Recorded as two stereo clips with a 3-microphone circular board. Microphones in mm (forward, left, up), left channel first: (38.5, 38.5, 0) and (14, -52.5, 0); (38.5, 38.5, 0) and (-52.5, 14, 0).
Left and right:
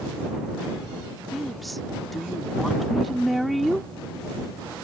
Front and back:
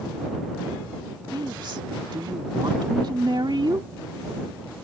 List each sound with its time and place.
1.3 s a woman speaking: 165° left